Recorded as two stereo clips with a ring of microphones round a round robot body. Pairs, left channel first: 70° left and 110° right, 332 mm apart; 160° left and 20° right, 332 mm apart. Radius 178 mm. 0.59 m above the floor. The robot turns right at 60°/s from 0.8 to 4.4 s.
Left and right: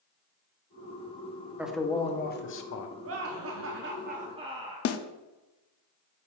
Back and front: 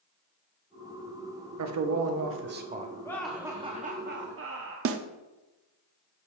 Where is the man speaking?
30° right, 0.8 m; by 2.9 s 50° left, 0.8 m.